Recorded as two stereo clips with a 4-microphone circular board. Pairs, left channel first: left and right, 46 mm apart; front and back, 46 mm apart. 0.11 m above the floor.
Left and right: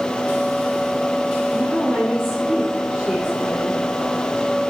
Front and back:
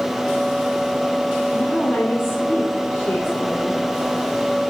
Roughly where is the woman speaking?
Ahead.